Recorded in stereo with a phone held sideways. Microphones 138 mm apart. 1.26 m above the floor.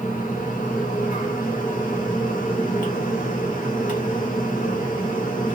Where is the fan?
85° left, 1.4 m.